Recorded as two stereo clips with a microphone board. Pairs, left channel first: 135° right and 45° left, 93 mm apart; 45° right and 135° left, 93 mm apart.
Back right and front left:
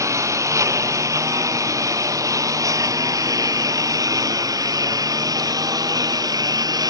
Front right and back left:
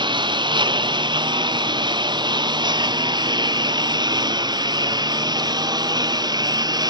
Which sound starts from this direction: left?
A lawn mower, at 0.0 s.